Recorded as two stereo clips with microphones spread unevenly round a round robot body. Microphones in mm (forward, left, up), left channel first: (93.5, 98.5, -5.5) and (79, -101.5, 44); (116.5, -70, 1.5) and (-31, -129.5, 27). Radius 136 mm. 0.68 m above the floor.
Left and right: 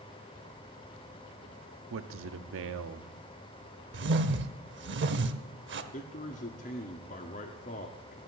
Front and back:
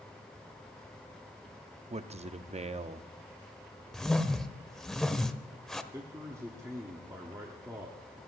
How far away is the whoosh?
About 1.2 m.